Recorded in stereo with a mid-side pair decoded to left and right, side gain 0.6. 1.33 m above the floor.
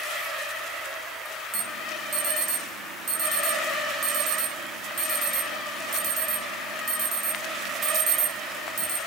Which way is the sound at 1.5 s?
55° right.